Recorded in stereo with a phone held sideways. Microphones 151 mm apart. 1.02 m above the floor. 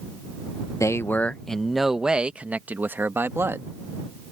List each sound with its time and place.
0.8 s a man speaking: 20° left (ahead or behind); by 3.7 s 15° right (ahead or behind)